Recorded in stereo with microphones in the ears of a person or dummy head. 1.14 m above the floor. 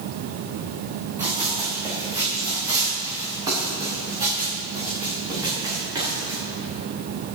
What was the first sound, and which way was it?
Running footsteps, 10° right (ahead or behind).